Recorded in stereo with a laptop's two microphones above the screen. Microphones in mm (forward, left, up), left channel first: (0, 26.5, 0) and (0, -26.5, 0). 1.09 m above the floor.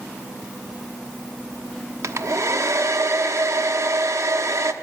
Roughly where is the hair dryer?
Right.